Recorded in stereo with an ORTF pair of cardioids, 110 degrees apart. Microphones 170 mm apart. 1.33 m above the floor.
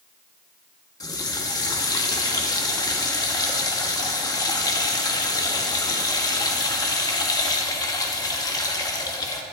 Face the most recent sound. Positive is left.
turn(degrees=25)